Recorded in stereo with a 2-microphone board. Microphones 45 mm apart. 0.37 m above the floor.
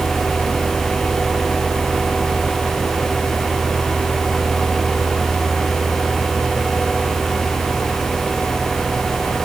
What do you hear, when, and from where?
Only background noise.